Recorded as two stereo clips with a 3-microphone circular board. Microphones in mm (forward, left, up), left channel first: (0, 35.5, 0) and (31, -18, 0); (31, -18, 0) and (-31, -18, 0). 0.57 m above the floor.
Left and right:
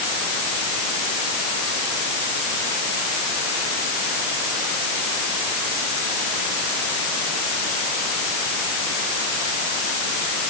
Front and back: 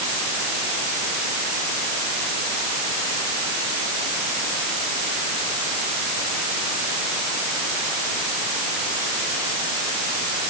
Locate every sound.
Only background noise.